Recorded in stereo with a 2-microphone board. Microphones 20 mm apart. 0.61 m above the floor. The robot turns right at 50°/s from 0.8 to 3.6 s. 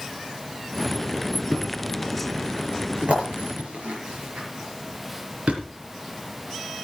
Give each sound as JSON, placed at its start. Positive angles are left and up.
{"t": 1.5, "sound": "a thud", "side_deg": 5, "distance_m": 5.0}